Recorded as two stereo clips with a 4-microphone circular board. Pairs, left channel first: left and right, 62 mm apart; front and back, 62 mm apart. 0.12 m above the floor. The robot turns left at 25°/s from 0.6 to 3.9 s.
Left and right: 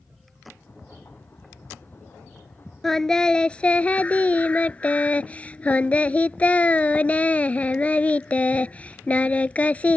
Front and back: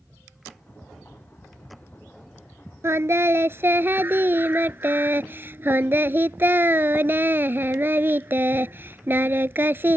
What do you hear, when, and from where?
2.8 s singing: 170° left; by 10.0 s 145° left